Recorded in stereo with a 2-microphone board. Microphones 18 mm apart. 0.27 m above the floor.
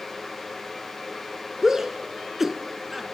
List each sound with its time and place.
1.6 s a shout: 20° right (ahead or behind), 3 m; by 3.0 s 5° right (ahead or behind), 3 m